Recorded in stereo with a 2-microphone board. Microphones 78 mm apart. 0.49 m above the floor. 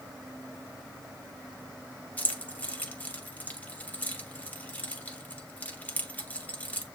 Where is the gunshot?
I don't hear a gunshot.